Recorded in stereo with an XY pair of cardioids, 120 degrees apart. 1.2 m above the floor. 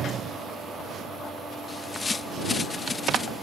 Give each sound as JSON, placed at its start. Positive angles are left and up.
{"t": 1.7, "sound": "a bird", "azimuth_deg": 25}